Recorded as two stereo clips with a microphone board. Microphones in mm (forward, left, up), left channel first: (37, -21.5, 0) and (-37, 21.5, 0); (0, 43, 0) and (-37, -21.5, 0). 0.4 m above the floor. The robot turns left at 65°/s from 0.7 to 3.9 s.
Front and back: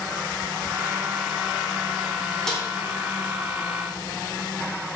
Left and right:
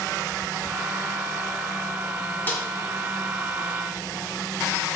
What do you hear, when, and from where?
2.5 s a snare drum: 45° left, 0.9 m; by 2.6 s 35° left, 0.9 m